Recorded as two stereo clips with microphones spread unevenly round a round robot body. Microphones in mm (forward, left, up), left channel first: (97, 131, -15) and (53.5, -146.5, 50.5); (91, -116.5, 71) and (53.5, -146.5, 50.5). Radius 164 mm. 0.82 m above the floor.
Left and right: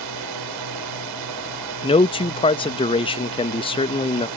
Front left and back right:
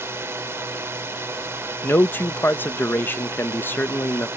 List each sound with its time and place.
0.0 s a drone: 110° right
1.8 s a man speaking: 100° left